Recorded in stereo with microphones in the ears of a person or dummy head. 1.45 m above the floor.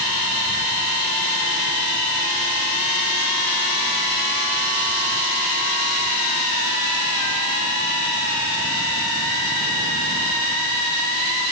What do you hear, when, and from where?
Only background noise.